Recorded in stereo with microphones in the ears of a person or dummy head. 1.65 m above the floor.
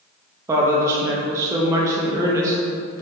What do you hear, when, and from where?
0.5 s a woman speaking: 15° right (ahead or behind), 0.6 m